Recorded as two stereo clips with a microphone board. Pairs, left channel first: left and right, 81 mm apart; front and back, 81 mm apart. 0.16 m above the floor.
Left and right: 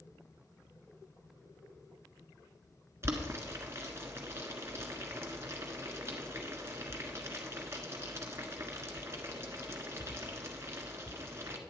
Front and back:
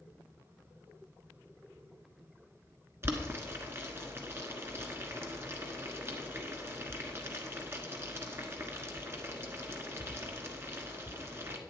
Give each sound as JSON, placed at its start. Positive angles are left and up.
{"t": 3.0, "sound": "boiling", "azimuth_deg": -135, "distance_m": 1.3}